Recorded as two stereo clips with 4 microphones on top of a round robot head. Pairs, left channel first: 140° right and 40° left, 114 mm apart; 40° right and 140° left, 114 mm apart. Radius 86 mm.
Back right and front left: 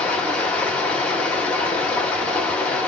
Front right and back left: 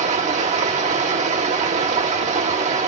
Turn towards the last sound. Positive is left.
turn(degrees=140)